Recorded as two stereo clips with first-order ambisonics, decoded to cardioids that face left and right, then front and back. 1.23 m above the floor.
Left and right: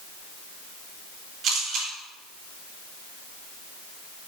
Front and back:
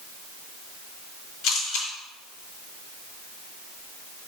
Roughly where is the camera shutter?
Ahead right.